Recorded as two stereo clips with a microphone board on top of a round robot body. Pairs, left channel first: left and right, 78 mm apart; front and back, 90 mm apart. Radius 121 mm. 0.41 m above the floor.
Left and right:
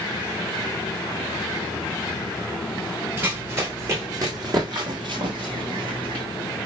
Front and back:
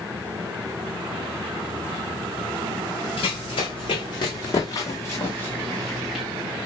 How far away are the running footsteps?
About 1.7 m.